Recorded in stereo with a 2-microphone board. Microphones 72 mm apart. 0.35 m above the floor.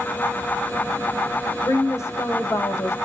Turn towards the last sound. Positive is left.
turn(degrees=40)  # may be behind; listen again after turning